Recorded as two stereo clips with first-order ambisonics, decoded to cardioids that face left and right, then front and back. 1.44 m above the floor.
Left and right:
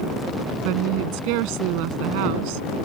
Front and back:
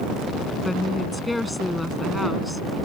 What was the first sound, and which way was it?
A woman speaking, 85° right.